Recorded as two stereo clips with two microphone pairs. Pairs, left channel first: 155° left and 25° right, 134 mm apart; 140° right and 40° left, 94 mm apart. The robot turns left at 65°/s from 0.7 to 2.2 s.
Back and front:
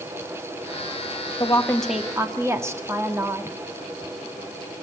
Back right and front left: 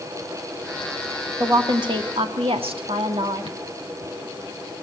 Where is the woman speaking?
100° left, 1.9 m; by 3.6 s 45° left, 1.9 m.